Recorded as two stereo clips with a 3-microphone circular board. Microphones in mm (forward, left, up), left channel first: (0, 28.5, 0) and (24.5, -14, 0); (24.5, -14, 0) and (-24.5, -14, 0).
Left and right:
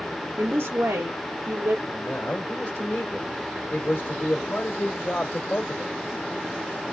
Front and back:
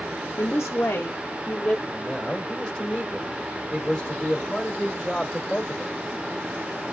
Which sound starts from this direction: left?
A man speaking, at 1.9 s.